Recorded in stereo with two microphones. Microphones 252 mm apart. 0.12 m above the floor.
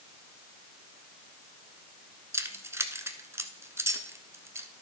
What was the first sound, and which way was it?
Keys jangling, 10° right (ahead or behind).